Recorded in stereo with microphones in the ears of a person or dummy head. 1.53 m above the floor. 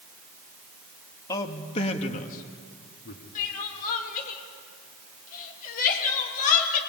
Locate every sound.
1.3 s a man speaking: 20° left (ahead or behind), 2.5 m; by 3.2 s 65° left (ahead or behind), 3 m
3.4 s crying: 45° left (ahead or behind), 3 m